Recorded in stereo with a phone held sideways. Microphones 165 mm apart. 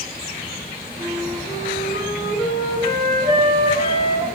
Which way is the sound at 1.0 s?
65° right (ahead or behind).